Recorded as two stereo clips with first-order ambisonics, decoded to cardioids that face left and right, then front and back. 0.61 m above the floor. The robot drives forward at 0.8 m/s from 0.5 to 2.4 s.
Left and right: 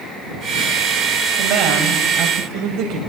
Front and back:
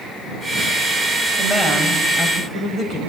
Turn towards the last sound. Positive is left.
turn(degrees=-105)